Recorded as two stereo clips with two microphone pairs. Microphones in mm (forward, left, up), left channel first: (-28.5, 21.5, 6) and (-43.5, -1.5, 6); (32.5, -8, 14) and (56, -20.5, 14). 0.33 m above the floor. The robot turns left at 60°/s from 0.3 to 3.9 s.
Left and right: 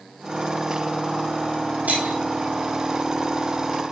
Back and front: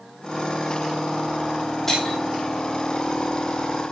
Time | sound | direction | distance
1.9 | breaking glass | 135° right | 4 m